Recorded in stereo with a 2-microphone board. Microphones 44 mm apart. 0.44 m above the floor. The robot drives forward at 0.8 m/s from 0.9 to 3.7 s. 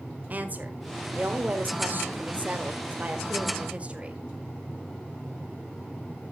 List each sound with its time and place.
0.3 s a woman speaking: 35° right (ahead or behind), 1.7 m; by 4.2 s 30° right (ahead or behind), 2 m